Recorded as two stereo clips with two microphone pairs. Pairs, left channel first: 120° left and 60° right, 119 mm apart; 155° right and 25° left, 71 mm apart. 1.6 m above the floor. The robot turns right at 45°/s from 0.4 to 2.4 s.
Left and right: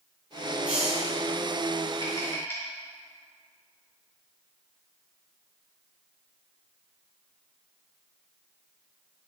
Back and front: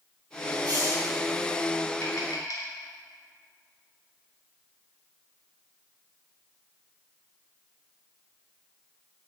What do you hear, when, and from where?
0.7 s a hiss: 20° left, 6 m; by 1.1 s 40° left, 6 m
2.0 s tapping: 175° left, 4 m; by 2.7 s 170° right, 4 m